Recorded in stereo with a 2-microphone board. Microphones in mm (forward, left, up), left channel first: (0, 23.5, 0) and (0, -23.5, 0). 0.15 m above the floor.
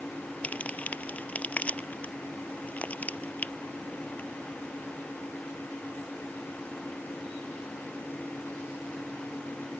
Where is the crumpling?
30° left (ahead or behind).